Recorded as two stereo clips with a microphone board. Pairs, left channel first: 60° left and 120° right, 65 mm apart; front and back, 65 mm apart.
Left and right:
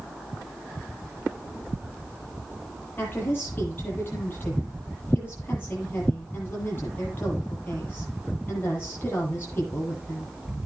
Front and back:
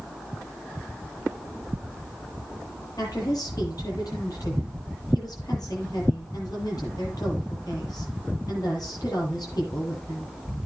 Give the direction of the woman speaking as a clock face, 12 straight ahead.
12 o'clock.